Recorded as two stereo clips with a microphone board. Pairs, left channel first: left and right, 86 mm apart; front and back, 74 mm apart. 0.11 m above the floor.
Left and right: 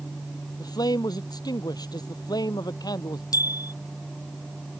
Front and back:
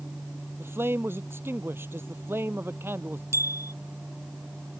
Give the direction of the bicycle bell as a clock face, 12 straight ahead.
8 o'clock.